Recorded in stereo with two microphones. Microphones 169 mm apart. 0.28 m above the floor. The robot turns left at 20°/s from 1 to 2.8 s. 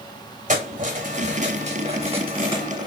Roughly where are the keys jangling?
Right.